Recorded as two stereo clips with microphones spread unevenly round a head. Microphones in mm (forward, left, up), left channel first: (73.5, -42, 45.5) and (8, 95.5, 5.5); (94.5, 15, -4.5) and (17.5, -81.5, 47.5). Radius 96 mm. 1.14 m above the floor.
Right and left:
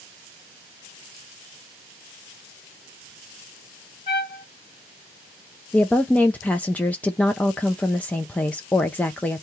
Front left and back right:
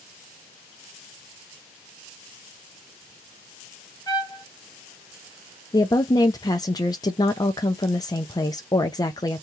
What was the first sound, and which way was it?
A trumpet, 25° right.